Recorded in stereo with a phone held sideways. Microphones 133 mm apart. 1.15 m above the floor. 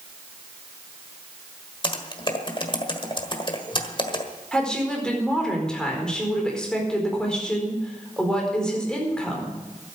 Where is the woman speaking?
5° left (ahead or behind), 4.5 m.